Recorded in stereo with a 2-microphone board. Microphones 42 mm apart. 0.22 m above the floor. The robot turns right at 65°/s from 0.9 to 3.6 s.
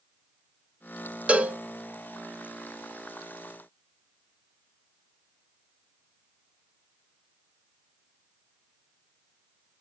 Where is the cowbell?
30° right (ahead or behind), 0.6 m.